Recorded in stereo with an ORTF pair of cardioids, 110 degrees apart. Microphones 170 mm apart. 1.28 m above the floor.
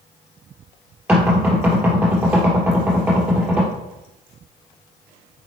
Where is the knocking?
5° right, 3 m.